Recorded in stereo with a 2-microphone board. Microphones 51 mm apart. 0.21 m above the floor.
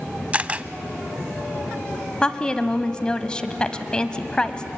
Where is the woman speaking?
15° left (ahead or behind), 1.0 m.